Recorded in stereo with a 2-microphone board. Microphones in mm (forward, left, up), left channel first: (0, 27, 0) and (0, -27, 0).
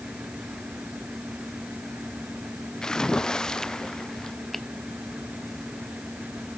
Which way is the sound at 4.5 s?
5° left (ahead or behind).